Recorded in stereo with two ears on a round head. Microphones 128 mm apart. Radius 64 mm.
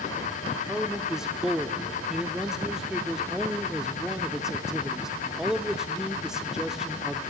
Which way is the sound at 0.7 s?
5° right (ahead or behind).